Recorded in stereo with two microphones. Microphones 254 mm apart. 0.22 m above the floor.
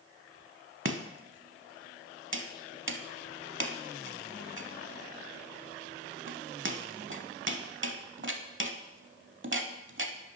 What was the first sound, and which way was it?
Chopping, 50° right (ahead or behind).